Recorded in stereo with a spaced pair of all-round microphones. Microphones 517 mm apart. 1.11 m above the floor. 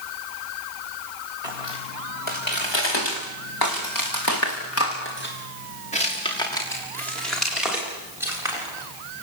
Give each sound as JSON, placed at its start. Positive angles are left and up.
{"t": 1.4, "sound": "footsteps", "side_deg": 75, "distance_m": 5.5}